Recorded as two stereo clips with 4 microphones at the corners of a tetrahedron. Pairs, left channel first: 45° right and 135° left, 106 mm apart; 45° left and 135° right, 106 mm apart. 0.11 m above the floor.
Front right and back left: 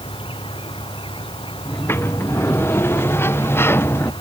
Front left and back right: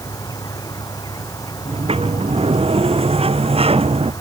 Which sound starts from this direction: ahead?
An insect, at 0.0 s.